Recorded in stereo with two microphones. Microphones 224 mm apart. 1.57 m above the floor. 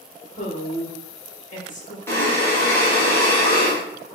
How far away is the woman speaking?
About 1.5 m.